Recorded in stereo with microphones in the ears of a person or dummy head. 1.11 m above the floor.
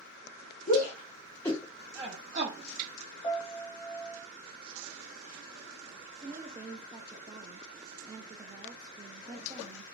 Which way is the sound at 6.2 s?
20° right (ahead or behind).